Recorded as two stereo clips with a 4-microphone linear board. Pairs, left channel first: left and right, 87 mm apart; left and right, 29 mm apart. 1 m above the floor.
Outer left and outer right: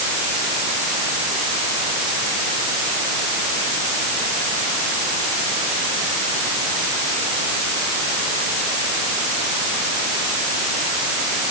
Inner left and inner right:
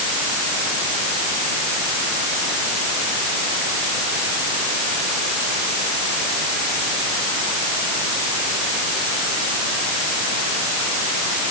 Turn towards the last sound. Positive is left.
No sound to turn to.